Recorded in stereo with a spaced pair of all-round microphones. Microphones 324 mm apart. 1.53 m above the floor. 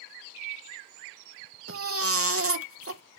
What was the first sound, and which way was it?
A baby crying, 45° right (ahead or behind).